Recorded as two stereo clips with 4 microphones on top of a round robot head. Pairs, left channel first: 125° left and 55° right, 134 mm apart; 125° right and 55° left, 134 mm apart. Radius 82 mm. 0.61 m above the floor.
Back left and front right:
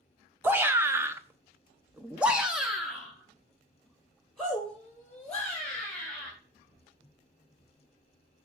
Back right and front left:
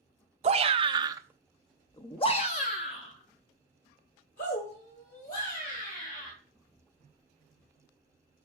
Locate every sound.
0.4 s a shout: 20° left, 1.2 m; by 6.3 s 150° right, 4 m